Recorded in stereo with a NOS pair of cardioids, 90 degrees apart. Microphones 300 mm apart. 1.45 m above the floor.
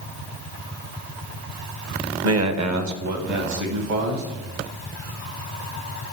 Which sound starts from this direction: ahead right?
A man speaking, at 2.2 s.